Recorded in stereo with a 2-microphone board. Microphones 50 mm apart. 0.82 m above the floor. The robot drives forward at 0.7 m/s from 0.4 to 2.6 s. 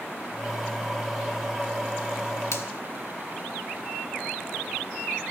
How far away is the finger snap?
About 1.6 m.